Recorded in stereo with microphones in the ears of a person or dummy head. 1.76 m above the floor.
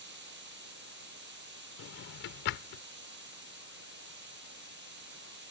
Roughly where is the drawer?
Left.